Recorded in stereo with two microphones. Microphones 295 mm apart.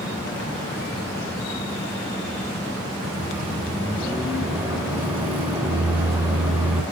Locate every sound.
3.0 s a microwave: 5° right (ahead or behind), 1.4 m